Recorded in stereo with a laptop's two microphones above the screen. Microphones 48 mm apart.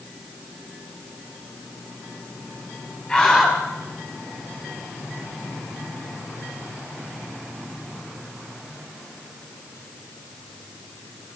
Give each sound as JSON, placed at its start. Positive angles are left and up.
{"t": 3.1, "sound": "a scream", "side_deg": 10, "distance_m": 7.0}